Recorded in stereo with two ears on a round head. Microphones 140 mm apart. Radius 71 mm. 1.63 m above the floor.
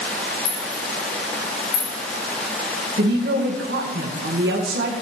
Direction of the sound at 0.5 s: 70° left (ahead or behind).